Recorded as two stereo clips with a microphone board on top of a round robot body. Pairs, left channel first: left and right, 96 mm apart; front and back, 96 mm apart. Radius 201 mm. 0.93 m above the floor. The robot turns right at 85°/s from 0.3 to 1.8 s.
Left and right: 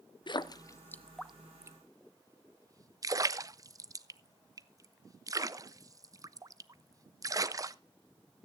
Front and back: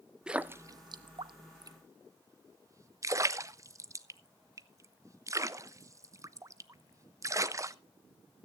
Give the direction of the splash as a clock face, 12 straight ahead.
9 o'clock.